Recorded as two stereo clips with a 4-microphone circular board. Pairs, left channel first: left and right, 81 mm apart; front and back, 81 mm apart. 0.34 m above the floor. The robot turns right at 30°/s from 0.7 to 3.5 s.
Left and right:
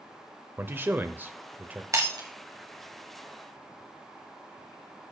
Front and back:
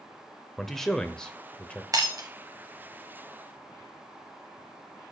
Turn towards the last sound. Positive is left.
turn(degrees=-90)